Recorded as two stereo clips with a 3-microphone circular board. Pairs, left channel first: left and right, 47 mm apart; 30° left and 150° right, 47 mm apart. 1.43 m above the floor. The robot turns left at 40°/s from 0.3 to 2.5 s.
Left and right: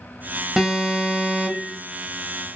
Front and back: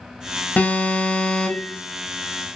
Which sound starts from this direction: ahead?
An alarm, at 0.6 s.